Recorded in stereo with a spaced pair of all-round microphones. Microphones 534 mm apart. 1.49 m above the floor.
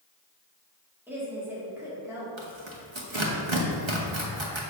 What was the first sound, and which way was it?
A woman speaking, 5° right (ahead or behind).